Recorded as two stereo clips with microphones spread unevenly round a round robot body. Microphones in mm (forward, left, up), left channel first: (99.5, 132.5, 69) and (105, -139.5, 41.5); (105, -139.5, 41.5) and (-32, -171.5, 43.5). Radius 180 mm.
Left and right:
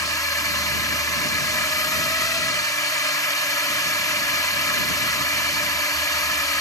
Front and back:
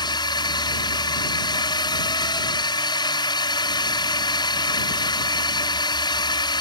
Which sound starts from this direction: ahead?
A drone, at 0.0 s.